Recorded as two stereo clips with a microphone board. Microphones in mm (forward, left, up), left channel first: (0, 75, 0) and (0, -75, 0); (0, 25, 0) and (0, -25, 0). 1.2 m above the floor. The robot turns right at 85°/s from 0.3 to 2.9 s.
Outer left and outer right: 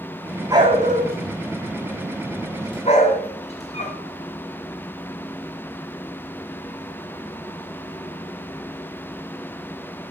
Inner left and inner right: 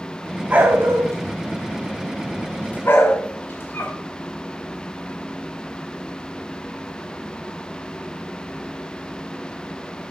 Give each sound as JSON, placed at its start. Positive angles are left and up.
{"t": 0.5, "sound": "a dog barking", "side_deg": -20, "distance_m": 3.5}